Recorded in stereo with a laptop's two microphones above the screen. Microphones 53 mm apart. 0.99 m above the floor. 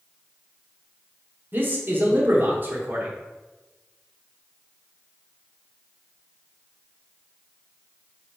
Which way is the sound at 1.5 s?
35° right (ahead or behind).